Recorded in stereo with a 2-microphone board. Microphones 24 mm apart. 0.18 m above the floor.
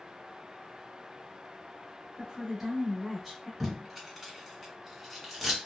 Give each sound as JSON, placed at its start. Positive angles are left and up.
{"t": 2.2, "sound": "a woman speaking", "side_deg": -10, "distance_m": 1.1}
{"t": 3.6, "sound": "tape being pulled", "side_deg": 0, "distance_m": 1.5}